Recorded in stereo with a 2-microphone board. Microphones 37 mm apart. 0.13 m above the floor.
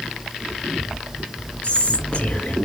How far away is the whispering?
About 2 m.